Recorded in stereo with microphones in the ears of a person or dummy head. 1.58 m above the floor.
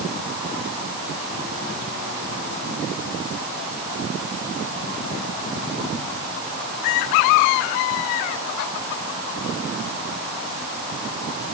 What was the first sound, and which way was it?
Only background noise.